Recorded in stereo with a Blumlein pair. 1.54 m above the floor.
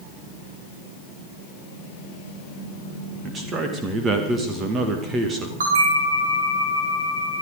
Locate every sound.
3.2 s a man speaking: 20° right, 1.9 m
5.6 s a bell: 65° right, 5 m